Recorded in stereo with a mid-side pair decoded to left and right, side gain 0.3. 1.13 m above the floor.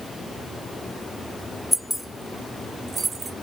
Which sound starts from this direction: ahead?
Keys jangling, at 1.7 s.